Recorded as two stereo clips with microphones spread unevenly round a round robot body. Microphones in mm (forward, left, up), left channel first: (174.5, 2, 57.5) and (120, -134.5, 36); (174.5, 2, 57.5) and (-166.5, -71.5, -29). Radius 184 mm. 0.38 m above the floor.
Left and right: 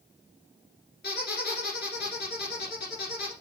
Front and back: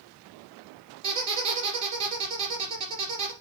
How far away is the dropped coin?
No dropped coin in this recording.